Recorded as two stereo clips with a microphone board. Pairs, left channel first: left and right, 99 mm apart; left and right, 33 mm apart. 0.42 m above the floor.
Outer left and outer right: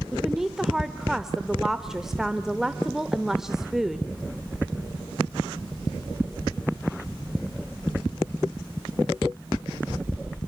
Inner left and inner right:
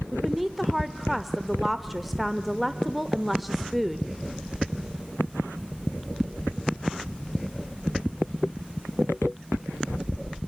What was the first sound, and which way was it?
A woman speaking, 5° right (ahead or behind).